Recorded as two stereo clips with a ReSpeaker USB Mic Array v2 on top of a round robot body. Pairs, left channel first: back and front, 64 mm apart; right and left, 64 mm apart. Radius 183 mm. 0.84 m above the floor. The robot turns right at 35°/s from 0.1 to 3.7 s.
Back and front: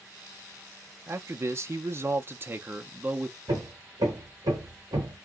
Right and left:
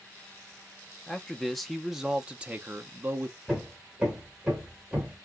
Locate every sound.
1.1 s a man speaking: 20° right, 0.8 m; by 3.4 s 60° left, 0.8 m
3.5 s hammering: 10° left, 0.8 m; by 5.2 s 15° left, 0.8 m